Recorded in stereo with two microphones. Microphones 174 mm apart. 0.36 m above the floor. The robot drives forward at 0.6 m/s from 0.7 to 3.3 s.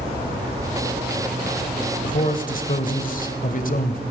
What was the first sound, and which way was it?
A man speaking, 50° left (ahead or behind).